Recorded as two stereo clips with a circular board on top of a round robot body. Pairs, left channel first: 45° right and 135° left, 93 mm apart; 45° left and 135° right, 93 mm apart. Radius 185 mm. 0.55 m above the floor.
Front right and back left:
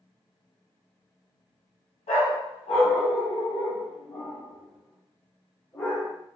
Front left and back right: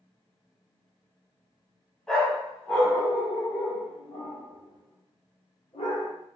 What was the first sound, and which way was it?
A dog barking, 40° right.